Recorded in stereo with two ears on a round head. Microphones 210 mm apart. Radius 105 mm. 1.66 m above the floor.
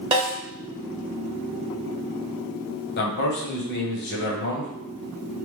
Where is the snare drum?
25° right (ahead or behind), 1.5 m.